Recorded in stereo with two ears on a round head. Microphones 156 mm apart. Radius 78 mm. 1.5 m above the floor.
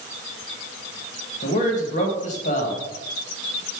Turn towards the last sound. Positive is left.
turn(degrees=45)  # may be behind; listen again after turning